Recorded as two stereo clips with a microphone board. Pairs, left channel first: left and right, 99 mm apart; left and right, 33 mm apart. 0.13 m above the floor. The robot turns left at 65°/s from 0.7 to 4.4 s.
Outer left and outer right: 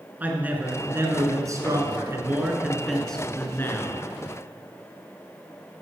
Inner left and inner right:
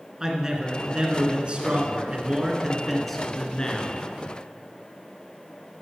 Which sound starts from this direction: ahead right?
A man speaking, at 0.2 s.